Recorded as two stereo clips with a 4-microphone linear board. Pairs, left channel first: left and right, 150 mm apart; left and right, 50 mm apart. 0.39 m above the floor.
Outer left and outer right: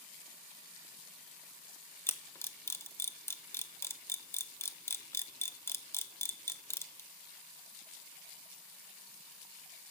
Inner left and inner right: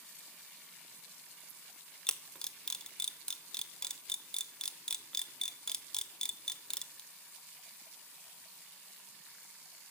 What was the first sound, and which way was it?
A camera shutter, 15° left (ahead or behind).